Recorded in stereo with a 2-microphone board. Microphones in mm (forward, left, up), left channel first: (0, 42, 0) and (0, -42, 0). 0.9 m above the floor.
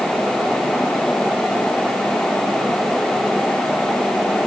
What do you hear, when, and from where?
Only background noise.